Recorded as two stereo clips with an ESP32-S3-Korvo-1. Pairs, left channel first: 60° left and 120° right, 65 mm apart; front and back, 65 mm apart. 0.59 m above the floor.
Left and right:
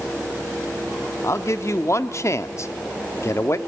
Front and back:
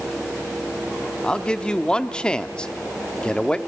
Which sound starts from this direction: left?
A man speaking, at 1.2 s.